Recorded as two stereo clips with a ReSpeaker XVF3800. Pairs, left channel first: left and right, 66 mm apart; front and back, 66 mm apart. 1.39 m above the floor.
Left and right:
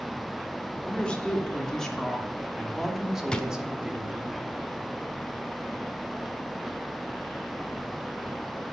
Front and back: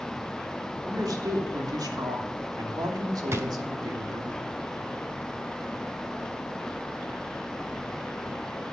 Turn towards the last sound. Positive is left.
turn(degrees=160)